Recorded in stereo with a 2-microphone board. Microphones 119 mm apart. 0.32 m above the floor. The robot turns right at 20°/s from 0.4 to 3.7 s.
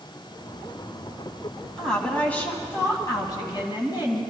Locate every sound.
1.8 s a woman speaking: 5° left, 2.5 m; by 4.2 s 45° left, 2.5 m